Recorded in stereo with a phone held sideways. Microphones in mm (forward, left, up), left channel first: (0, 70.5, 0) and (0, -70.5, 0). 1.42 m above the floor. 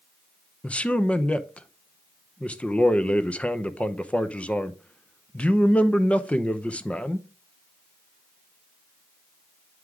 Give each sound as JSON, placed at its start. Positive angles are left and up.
{"t": 0.6, "sound": "a man speaking", "side_deg": 10, "distance_m": 0.7}